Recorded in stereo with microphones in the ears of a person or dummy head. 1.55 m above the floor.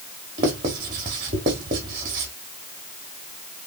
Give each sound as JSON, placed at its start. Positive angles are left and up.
{"t": 0.4, "sound": "writing", "side_deg": -20, "distance_m": 1.1}